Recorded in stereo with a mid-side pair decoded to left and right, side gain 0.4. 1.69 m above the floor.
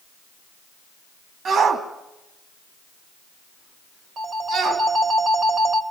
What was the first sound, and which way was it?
A shout, 60° right.